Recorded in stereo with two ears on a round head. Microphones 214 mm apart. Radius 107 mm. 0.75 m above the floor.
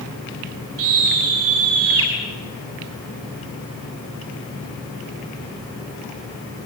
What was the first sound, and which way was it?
A scream, 65° right (ahead or behind).